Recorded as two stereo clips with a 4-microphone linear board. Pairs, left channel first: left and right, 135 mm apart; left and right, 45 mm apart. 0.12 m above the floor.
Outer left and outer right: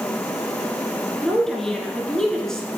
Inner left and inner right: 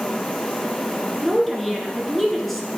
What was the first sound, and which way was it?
A woman speaking, 5° left (ahead or behind).